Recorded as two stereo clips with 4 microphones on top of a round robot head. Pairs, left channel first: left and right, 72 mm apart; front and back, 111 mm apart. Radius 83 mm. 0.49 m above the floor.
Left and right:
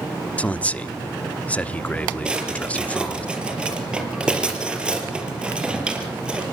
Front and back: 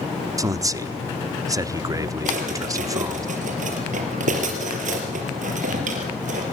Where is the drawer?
165° right, 4 m.